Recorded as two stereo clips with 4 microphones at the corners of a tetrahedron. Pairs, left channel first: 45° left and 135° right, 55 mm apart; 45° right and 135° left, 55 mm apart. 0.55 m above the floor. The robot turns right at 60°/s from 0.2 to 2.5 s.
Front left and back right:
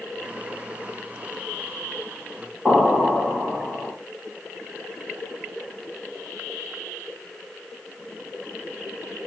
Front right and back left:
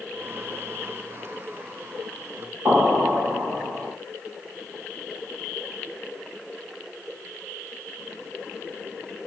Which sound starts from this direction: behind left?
An explosion, at 2.6 s.